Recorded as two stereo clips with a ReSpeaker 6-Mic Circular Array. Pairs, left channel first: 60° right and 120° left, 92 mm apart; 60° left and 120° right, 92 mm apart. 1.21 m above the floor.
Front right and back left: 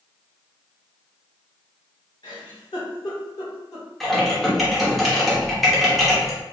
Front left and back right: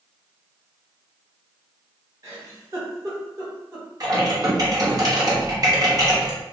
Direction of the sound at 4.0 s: 150° right.